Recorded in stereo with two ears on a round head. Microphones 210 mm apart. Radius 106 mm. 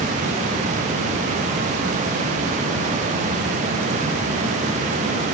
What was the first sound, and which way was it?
Only background noise.